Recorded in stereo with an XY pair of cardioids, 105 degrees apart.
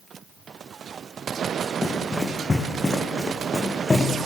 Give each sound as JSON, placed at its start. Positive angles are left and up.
{"t": 1.8, "sound": "running footsteps", "azimuth_deg": 20, "distance_m": 6.5}